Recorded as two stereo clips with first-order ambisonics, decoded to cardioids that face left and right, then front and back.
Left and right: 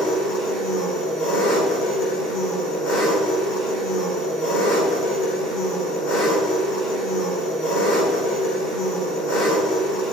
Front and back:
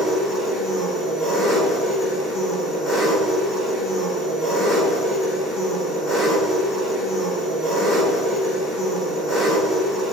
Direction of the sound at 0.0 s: 100° left.